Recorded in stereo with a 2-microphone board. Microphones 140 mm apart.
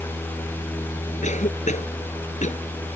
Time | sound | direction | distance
1.2 | a cough | 60° left (ahead or behind) | ?